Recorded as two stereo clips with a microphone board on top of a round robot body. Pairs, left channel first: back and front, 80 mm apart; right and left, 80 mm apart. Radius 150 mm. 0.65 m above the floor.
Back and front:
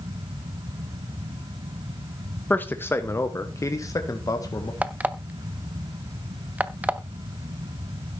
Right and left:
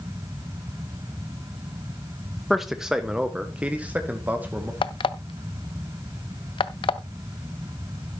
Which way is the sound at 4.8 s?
75° right.